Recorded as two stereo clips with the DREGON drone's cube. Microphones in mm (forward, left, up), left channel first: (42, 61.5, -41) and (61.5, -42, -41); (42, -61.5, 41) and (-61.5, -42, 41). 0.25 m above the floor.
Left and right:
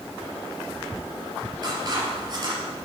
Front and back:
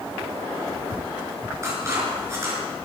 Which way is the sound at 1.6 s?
130° right.